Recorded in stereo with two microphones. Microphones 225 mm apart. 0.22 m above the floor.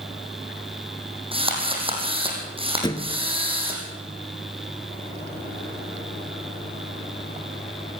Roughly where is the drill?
Right.